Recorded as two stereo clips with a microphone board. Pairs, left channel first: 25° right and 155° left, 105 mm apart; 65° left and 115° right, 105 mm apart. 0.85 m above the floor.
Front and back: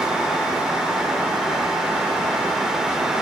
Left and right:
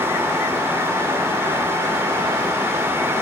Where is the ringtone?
I don't hear a ringtone.